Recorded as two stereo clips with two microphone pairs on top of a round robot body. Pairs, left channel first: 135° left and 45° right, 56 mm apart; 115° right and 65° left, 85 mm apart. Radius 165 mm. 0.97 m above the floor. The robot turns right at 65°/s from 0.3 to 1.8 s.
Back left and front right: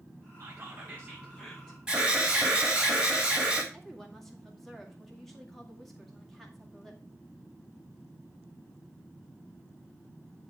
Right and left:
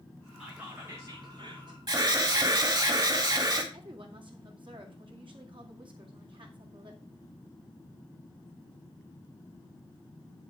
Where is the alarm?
30° left, 3 m.